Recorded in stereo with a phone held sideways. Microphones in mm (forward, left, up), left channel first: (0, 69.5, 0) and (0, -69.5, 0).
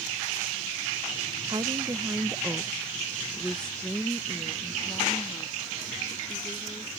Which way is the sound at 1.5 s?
30° right (ahead or behind).